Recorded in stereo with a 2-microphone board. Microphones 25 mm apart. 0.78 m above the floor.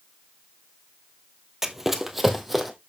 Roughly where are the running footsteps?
Centre.